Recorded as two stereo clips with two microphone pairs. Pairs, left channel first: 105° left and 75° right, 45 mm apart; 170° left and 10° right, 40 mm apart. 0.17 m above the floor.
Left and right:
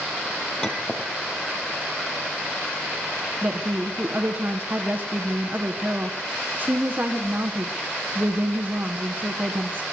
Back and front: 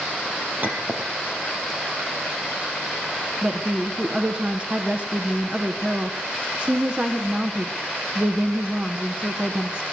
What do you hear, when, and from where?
0.6 s a clink: 30° left, 4 m
3.4 s a woman speaking: 60° right, 1.4 m